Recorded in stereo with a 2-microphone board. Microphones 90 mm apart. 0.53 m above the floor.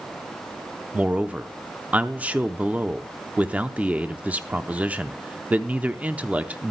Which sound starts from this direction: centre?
A man speaking, at 0.9 s.